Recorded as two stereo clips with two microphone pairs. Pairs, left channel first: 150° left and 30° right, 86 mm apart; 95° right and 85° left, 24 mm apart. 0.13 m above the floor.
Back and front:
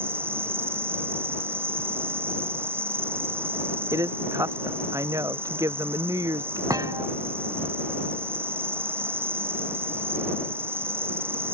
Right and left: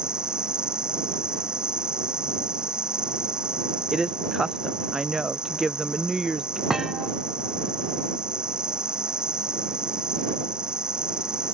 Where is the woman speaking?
15° left.